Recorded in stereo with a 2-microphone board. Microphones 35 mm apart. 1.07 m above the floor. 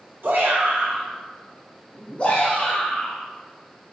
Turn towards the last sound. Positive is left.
turn(degrees=65)  # may be behind; listen again after turning